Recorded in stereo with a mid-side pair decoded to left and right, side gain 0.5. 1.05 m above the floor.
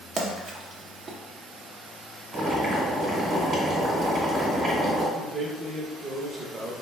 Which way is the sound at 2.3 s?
55° right.